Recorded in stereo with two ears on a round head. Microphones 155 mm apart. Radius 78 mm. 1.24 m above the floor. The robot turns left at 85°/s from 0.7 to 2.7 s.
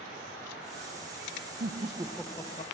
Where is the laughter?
130° right, 0.8 m; by 2.7 s 140° left, 0.8 m.